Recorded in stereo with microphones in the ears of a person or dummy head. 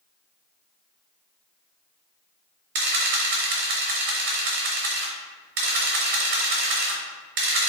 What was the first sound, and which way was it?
A camera shutter, 50° right (ahead or behind).